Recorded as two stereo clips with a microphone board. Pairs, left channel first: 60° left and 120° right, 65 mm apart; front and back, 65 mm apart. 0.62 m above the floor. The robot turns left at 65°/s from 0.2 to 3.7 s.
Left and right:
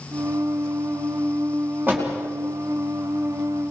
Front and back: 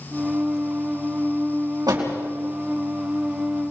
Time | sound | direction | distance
1.9 | a door slam | straight behind | 4.5 m